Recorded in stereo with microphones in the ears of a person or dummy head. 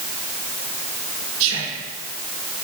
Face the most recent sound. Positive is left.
turn(degrees=-75)  # may be behind; listen again after turning